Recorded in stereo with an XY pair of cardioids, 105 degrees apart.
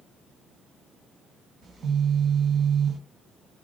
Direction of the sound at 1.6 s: 50° right.